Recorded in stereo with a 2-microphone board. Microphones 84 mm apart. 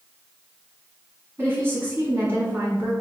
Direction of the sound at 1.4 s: 30° right (ahead or behind).